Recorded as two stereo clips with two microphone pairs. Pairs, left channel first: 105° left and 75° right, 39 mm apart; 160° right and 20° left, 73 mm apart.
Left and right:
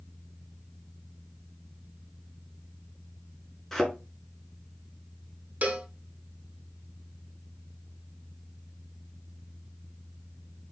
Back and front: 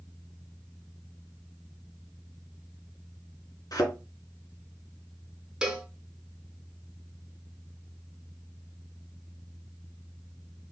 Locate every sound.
3.7 s a thud: 165° right, 1.5 m
5.6 s a cowbell: 55° right, 0.9 m